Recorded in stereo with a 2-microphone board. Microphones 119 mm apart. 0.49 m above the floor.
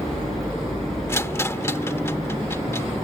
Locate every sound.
1.1 s a rattle: 20° left (ahead or behind)